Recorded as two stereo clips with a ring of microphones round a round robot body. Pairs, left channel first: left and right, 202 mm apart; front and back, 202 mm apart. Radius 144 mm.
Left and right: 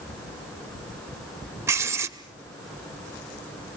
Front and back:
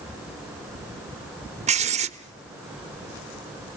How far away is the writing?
About 1.2 m.